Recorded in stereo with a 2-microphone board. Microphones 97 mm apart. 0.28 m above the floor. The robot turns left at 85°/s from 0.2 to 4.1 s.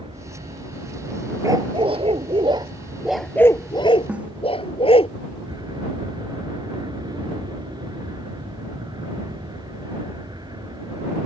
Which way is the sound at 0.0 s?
80° right.